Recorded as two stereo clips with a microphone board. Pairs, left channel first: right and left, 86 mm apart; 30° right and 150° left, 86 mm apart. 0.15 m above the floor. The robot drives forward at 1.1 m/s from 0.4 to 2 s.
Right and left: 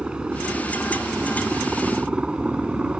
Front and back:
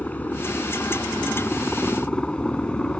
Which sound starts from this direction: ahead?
A helicopter, at 0.0 s.